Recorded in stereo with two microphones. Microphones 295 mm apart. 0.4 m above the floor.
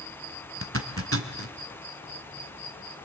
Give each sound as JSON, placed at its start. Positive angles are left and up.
{"t": 0.6, "sound": "a zipper", "side_deg": -50, "distance_m": 1.2}